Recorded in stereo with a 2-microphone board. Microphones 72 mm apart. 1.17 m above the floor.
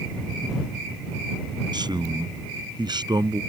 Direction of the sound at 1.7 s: 90° right.